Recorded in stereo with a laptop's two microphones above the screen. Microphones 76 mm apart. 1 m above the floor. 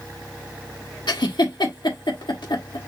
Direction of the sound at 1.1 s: 80° left.